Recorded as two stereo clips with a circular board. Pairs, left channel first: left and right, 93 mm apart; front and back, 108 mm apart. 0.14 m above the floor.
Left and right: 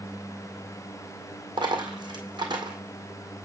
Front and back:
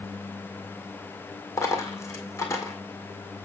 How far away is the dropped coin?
About 1.9 m.